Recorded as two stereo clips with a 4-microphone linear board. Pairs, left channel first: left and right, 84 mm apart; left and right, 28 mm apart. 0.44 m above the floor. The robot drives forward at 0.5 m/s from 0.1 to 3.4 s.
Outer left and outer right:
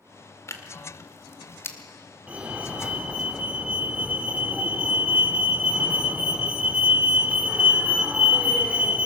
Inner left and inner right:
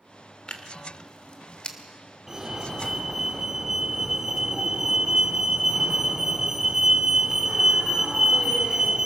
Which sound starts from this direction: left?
Tearing paper, at 0.5 s.